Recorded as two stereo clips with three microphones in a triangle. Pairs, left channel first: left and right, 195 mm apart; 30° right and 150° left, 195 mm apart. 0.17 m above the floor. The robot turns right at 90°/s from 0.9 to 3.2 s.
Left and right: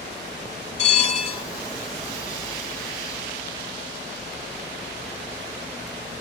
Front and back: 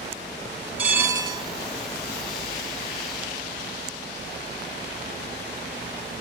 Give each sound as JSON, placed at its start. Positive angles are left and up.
{"t": 0.8, "sound": "a bell", "azimuth_deg": 75, "distance_m": 1.1}